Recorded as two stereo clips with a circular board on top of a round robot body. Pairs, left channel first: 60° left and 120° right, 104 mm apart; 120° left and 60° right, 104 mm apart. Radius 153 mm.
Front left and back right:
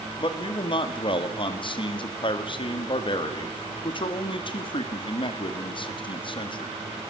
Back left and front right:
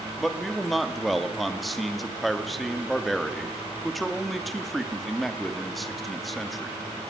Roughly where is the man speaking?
Ahead left.